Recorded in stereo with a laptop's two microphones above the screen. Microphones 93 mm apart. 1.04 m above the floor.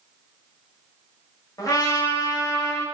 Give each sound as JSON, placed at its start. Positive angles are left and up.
{"t": 1.6, "sound": "a trumpet", "side_deg": 40, "distance_m": 0.5}